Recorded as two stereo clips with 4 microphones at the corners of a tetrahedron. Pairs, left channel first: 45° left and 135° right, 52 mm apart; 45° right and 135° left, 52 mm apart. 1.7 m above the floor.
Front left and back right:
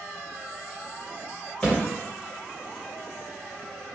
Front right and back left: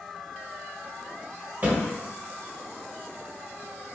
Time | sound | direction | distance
1.6 | a thud | 120° left | 1.8 m